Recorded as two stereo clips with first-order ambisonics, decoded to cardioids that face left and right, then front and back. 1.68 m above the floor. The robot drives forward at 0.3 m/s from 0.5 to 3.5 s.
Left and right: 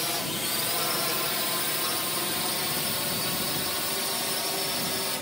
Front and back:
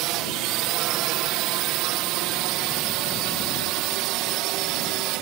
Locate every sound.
0.0 s a drone: 170° left; by 5.2 s 175° left